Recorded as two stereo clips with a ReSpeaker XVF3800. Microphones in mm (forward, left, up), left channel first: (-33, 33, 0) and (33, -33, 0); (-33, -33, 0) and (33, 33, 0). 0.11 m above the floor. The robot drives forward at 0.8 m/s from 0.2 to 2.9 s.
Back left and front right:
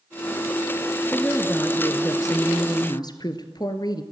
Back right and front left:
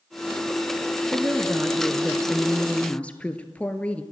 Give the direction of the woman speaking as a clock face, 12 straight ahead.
9 o'clock.